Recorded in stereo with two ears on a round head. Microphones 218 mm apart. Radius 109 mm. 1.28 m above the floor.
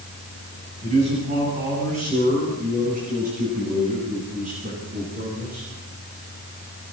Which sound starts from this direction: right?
A man speaking, at 0.8 s.